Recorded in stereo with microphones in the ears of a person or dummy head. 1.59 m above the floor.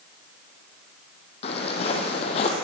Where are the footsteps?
35° left (ahead or behind), 4 m.